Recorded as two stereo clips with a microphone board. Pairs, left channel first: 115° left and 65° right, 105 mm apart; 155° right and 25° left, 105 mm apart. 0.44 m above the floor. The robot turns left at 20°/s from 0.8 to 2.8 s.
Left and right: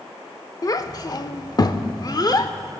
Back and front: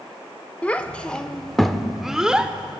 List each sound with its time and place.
0.6 s a child speaking: 135° left, 0.6 m; by 2.5 s 100° left, 0.6 m